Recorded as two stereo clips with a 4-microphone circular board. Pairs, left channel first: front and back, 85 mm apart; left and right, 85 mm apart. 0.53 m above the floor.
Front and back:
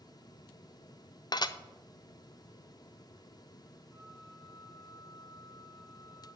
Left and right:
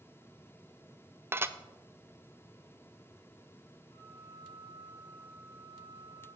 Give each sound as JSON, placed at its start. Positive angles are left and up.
{"t": 1.3, "sound": "dishes clattering", "azimuth_deg": -30, "distance_m": 0.5}
{"t": 3.9, "sound": "a flute", "azimuth_deg": 105, "distance_m": 3.5}